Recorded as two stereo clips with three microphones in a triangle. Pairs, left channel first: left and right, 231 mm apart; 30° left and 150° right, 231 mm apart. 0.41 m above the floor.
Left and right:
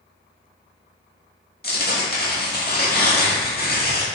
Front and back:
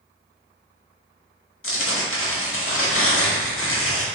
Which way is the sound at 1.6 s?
45° left.